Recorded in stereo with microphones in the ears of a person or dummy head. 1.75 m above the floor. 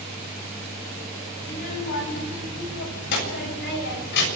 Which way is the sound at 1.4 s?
45° left (ahead or behind).